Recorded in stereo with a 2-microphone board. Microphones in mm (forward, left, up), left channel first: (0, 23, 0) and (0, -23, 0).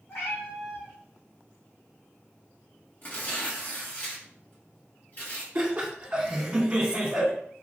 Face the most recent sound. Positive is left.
turn(degrees=-25)  # may be behind; listen again after turning